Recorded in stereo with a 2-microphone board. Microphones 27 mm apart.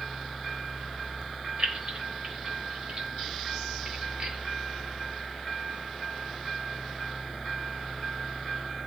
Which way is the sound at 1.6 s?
45° right (ahead or behind).